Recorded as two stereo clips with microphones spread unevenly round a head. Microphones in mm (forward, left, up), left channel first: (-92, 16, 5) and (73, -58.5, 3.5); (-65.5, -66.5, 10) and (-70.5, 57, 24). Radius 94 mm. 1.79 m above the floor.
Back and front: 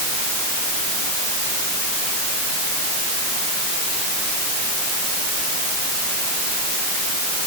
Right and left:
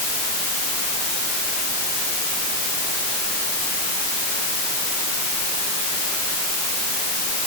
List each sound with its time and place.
Only background noise.